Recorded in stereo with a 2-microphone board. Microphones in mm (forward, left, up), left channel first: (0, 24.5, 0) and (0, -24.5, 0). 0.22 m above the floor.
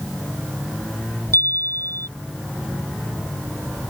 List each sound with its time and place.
1.3 s a chime: 65° left (ahead or behind)